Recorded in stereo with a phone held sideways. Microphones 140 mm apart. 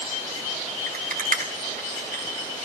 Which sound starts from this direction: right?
A rattle, at 0.9 s.